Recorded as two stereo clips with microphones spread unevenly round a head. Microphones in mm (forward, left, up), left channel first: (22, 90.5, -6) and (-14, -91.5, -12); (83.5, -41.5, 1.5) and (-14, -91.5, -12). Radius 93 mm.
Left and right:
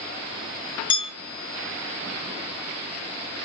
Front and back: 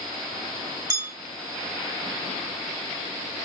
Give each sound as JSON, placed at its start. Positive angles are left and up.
{"t": 0.9, "sound": "a bell", "azimuth_deg": 140, "distance_m": 2.0}